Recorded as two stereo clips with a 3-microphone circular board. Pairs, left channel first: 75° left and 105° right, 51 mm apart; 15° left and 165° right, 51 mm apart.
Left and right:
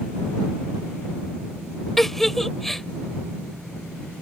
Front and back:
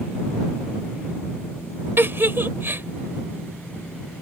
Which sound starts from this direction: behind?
A giggle, at 2.0 s.